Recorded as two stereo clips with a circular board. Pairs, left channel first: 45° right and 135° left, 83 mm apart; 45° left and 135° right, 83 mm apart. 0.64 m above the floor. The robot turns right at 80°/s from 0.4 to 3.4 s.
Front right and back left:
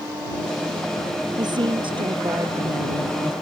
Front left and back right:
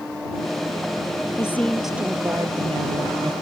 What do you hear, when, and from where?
1.4 s a woman speaking: 100° left; by 3.3 s 100° right